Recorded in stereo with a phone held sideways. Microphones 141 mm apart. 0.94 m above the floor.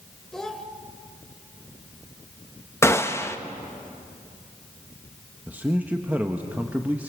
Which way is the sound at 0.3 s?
5° left (ahead or behind).